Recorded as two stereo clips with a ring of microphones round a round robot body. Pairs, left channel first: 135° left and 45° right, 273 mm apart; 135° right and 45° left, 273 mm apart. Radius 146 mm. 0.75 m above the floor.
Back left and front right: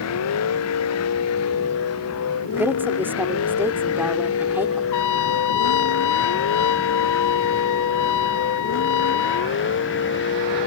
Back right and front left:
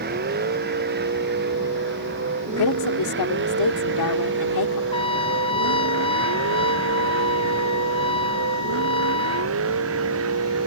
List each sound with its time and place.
0.0 s a vehicle: 100° left; by 10.7 s 85° left
2.6 s a woman speaking: 130° right
4.9 s a trumpet: 155° left